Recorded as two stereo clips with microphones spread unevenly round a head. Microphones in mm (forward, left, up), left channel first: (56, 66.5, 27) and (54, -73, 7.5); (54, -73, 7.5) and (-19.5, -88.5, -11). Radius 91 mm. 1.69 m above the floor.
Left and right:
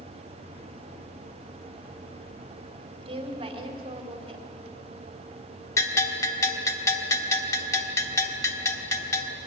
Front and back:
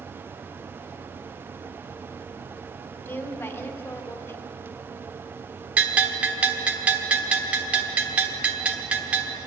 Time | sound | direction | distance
3.0 | a woman speaking | 40° right | 4.5 m
5.8 | a bell | 105° left | 1.4 m